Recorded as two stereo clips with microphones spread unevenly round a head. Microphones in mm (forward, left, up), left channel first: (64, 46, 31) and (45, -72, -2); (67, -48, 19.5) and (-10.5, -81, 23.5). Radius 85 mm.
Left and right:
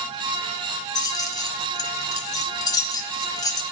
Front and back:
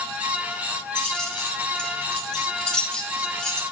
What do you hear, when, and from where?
0.9 s keys jangling: 105° left, 0.6 m